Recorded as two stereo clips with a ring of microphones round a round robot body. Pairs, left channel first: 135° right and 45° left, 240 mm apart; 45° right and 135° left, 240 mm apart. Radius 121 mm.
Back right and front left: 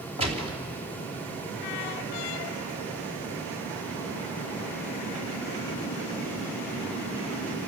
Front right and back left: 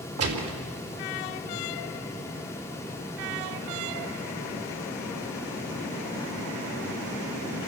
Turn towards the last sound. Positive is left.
turn(degrees=110)